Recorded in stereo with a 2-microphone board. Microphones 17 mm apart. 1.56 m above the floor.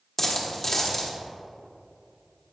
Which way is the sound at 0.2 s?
20° left (ahead or behind).